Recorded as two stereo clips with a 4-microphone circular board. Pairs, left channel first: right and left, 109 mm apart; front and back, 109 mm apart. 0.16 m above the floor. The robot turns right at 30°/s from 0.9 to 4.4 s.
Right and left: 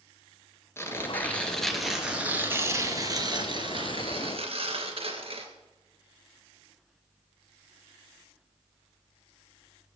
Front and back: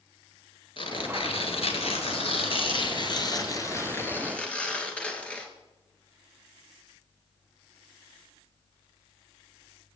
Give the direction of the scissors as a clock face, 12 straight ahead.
No scissors in this recording.